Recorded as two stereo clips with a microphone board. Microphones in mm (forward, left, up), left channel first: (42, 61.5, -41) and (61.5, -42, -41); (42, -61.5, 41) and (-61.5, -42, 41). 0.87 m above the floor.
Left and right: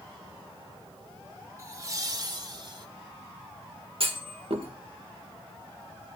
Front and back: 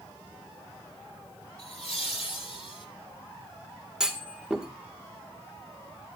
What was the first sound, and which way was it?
Laughter, 20° right.